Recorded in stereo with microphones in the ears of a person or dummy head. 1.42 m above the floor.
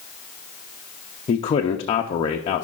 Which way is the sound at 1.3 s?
30° left (ahead or behind).